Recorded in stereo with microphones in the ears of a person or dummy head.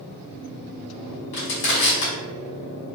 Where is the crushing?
55° left (ahead or behind), 1.5 m.